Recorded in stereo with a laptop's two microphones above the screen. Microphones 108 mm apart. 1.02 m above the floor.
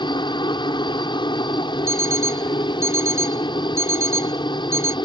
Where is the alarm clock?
25° right (ahead or behind).